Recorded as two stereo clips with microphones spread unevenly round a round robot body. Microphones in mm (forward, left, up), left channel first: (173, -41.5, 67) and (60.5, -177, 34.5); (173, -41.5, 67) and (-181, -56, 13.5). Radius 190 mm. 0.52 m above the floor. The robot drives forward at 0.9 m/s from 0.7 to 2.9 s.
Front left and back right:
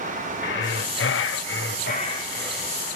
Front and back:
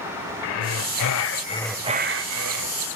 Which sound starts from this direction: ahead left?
Breathing, at 0.4 s.